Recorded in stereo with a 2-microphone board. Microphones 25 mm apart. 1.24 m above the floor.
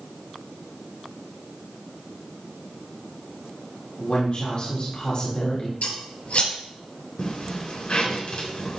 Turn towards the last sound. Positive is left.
turn(degrees=55)  # may be behind; listen again after turning